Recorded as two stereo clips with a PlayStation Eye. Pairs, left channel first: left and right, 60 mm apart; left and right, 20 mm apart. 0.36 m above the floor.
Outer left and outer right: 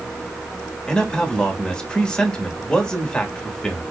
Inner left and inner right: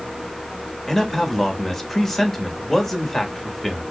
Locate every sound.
0.9 s a man speaking: 15° left (ahead or behind), 1.1 m